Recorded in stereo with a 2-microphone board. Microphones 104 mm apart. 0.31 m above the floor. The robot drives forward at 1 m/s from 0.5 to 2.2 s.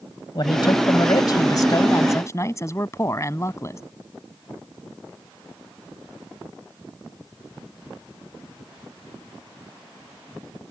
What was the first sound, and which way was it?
A man speaking, 50° left (ahead or behind).